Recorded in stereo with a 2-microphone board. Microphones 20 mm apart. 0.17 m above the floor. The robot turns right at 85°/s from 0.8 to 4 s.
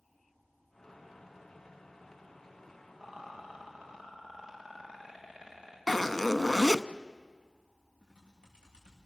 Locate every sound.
3.0 s a rattle: 65° right (ahead or behind), 8.5 m; by 5.8 s 30° right (ahead or behind), 8.5 m
5.9 s a zipper: 10° left (ahead or behind), 0.6 m
8.0 s typing on a keyboard: 85° right, 6 m